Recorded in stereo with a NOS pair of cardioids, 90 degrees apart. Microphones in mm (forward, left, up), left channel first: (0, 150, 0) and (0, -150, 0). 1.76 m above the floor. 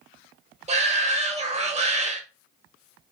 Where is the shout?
20° right, 0.9 m.